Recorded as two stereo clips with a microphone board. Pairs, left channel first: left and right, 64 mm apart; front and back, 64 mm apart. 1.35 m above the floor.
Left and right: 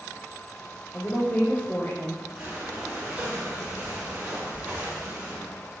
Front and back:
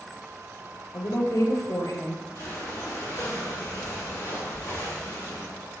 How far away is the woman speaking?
About 0.8 m.